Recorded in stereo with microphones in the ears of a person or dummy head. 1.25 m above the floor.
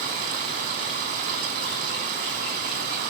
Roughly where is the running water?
Right.